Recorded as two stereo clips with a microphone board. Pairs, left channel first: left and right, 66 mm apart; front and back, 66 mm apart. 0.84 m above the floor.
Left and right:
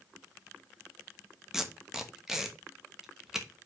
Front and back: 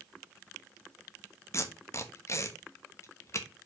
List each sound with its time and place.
1.5 s tape being pulled: 10° right, 1.1 m